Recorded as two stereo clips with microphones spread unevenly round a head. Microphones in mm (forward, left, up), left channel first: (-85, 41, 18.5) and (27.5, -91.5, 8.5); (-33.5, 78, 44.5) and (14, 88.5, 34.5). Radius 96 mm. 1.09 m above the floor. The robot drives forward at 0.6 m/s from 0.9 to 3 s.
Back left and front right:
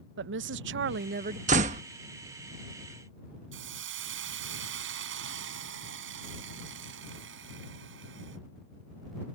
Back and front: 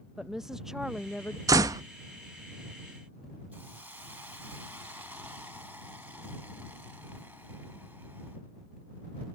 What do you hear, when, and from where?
0.2 s a woman speaking: 75° right; by 1.4 s 100° right
1.5 s a door slam: 10° left
3.5 s a hiss: 70° right